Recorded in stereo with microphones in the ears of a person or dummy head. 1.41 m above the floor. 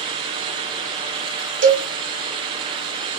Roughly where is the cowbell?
Right.